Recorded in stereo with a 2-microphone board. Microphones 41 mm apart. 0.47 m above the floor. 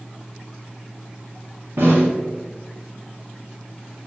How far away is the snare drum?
About 1.5 m.